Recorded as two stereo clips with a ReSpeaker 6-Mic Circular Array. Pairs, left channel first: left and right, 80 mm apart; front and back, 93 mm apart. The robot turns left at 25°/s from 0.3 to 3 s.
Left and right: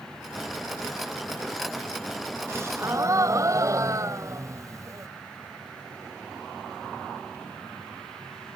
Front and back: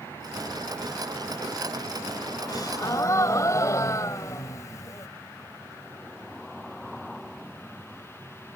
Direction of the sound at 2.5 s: 35° right.